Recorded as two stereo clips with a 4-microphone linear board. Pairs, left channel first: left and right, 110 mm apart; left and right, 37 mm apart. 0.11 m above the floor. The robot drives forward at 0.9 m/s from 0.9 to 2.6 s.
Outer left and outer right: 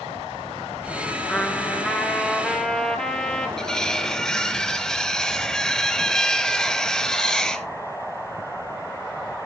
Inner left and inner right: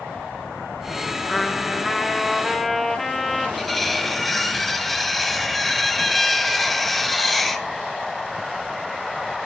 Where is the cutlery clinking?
5° left (ahead or behind), 1.0 m.